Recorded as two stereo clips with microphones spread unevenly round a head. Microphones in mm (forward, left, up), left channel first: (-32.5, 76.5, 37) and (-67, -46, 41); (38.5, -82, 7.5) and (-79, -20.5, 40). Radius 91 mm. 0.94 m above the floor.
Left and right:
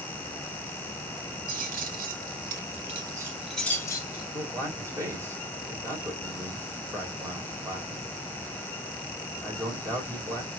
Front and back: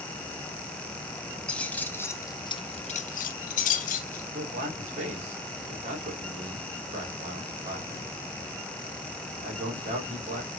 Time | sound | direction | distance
1.5 | keys jangling | 110° right | 1.2 m
4.3 | a man speaking | 175° right | 3 m